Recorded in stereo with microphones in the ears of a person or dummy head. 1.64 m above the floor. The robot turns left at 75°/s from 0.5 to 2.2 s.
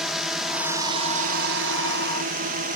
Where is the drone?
5° right; by 2.8 s 135° right.